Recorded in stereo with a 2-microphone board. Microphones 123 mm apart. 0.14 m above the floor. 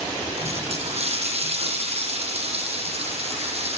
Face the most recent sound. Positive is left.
turn(degrees=-55)  # may be behind; listen again after turning